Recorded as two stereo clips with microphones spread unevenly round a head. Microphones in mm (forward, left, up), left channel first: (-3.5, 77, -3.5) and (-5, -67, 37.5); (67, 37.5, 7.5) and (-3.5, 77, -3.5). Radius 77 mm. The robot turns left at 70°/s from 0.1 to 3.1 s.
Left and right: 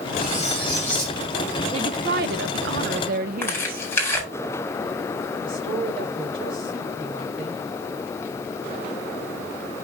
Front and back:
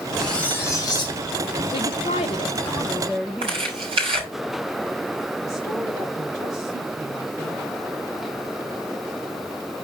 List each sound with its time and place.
0.2 s cutlery clinking: 60° left, 6 m; by 1.2 s 10° right, 6 m
1.7 s a woman speaking: 30° right, 0.5 m; by 3.8 s 125° right, 0.5 m
3.4 s tearing paper: 165° left, 4 m
5.4 s a woman speaking: 150° right, 6 m